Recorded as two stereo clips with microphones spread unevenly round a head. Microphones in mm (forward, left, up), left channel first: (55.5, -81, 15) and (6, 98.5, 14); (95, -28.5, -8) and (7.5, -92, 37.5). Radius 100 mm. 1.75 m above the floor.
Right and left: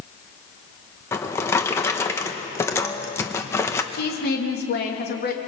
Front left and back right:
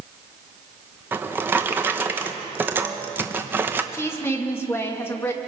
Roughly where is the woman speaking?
Ahead right.